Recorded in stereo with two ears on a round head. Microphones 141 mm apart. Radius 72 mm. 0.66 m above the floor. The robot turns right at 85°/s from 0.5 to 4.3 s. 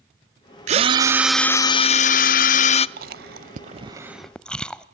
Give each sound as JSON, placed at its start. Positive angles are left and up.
{"t": 0.7, "sound": "a drill", "azimuth_deg": -55, "distance_m": 0.6}
{"t": 3.0, "sound": "chewing", "side_deg": -60, "distance_m": 0.8}